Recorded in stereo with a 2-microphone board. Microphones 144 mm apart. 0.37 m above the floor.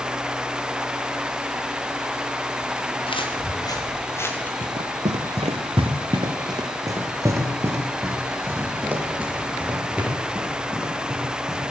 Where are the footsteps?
35° left (ahead or behind), 2.5 m; by 4.5 s 10° left (ahead or behind), 2.5 m.